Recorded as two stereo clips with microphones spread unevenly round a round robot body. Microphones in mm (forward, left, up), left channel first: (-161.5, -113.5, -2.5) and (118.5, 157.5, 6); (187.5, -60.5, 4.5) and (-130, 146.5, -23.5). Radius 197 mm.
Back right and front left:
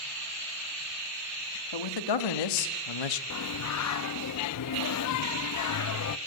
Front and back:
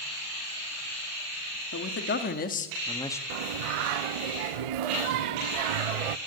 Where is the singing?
170° left, 0.6 m.